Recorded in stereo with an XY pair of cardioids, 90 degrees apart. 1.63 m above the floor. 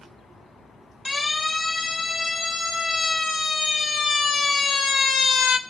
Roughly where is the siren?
Ahead left.